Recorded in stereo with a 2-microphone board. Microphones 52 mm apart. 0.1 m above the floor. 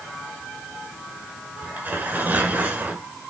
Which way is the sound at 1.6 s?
35° right (ahead or behind).